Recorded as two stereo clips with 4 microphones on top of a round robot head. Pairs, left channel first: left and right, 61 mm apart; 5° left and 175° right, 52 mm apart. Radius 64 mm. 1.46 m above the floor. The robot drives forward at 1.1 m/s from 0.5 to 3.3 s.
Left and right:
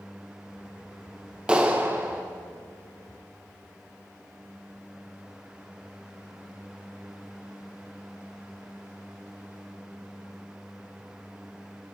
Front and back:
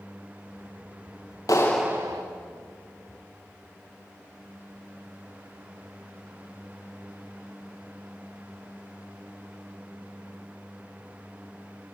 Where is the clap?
20° right, 0.6 m; by 2.2 s 165° right, 0.7 m.